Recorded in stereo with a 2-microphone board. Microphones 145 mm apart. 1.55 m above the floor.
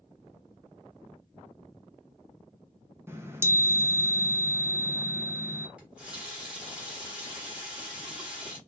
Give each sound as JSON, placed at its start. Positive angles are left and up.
{"t": 3.1, "sound": "a chime", "side_deg": -15, "distance_m": 0.5}
{"t": 5.8, "sound": "a running tap", "side_deg": -10, "distance_m": 1.2}